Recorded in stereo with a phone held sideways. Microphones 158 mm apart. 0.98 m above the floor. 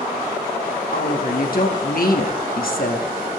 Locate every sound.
0.9 s a woman speaking: 65° left (ahead or behind), 2.5 m